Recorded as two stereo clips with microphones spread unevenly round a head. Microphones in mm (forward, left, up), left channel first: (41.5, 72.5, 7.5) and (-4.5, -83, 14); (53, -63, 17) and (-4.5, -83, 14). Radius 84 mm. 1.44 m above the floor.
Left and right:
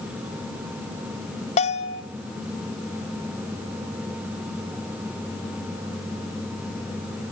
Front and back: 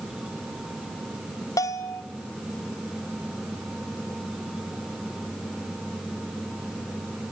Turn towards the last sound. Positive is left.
turn(degrees=30)